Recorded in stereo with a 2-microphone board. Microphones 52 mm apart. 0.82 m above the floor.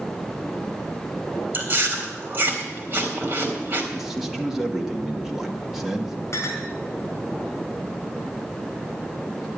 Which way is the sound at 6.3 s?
55° left (ahead or behind).